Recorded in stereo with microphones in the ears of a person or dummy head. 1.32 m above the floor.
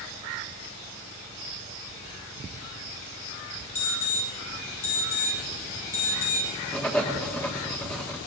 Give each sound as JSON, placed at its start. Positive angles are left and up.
{"t": 3.8, "sound": "an alarm", "side_deg": 40, "distance_m": 8.5}
{"t": 6.7, "sound": "writing", "side_deg": 5, "distance_m": 1.5}